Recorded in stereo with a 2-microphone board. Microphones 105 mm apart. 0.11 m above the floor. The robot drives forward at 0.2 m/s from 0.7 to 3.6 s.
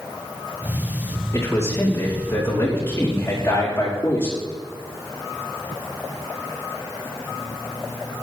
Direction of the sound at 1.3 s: 25° left (ahead or behind).